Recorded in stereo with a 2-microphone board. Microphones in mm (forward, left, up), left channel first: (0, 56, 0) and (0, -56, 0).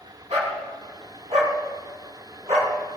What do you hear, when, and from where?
0.3 s a dog barking: 75° right (ahead or behind), 5 m